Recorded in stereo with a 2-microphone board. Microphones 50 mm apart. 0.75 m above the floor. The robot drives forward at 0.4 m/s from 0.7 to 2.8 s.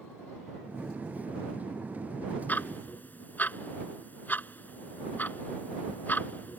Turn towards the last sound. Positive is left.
turn(degrees=40)  # may be behind; listen again after turning